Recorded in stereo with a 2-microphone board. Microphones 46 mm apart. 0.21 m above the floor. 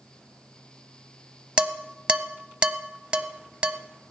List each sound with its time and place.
1.6 s dishes clattering: 25° right (ahead or behind), 0.8 m